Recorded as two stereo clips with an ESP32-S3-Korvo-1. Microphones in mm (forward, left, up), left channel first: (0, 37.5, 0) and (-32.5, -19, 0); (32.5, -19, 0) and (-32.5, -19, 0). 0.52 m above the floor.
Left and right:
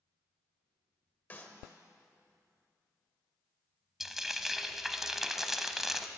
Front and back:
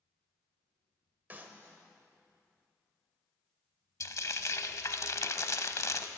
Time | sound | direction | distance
1.3 | a clap | 125° left | 1.5 m
4.0 | frying | 35° right | 0.7 m